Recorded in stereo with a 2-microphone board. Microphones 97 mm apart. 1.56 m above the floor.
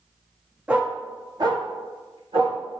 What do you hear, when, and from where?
0.7 s a dog barking: 10° right (ahead or behind), 1.0 m; by 2.6 s 60° right (ahead or behind), 2.5 m